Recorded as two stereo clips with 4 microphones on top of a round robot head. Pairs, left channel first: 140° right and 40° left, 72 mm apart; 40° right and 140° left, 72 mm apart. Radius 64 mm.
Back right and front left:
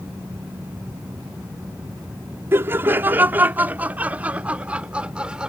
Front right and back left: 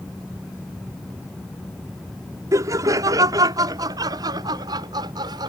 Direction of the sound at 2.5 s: 95° left.